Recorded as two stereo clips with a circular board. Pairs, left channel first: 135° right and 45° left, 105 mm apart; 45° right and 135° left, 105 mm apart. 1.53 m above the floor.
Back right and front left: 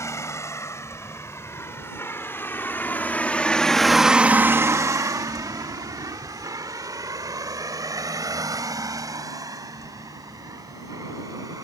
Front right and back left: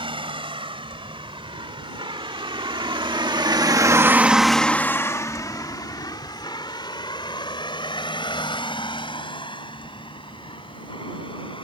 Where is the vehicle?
165° left; by 11.7 s 10° right.